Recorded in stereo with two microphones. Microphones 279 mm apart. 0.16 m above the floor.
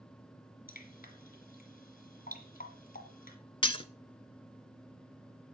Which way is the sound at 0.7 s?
30° left (ahead or behind).